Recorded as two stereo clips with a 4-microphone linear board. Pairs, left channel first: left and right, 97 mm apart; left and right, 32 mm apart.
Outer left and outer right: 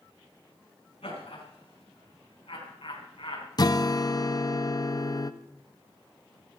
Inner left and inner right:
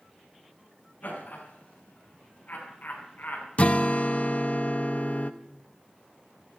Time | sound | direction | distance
1.0 | laughter | 85° left | 8.5 m
3.6 | a guitar | 45° left (ahead or behind) | 0.8 m